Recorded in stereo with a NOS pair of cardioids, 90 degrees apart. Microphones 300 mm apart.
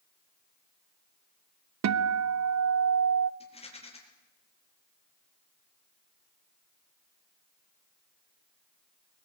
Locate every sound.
1.8 s a guitar: 60° right, 1.2 m
3.4 s a rattle: 20° left, 7 m